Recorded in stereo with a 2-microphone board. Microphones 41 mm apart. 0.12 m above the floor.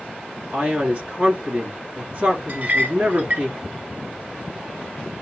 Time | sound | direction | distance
0.5 | a man speaking | 35° right (ahead or behind) | 1.3 m
2.5 | a clink | 45° right (ahead or behind) | 1.0 m